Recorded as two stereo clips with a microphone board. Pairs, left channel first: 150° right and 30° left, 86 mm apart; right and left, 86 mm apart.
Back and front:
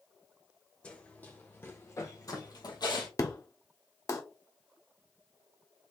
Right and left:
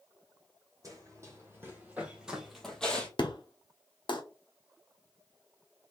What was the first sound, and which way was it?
Running footsteps, 135° left.